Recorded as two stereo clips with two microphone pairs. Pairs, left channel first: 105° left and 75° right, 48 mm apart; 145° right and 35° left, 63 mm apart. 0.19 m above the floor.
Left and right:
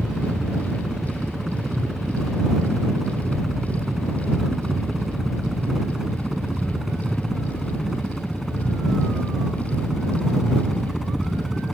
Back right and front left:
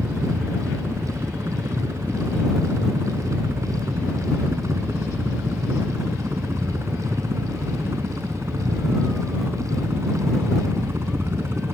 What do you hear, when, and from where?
0.0 s a helicopter: 5° left; by 11.7 s 15° left